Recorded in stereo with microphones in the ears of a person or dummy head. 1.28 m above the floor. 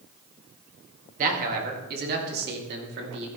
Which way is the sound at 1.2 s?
50° right (ahead or behind).